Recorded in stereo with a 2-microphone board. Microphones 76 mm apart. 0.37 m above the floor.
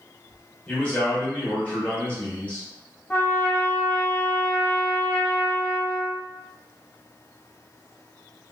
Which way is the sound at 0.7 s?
20° left (ahead or behind).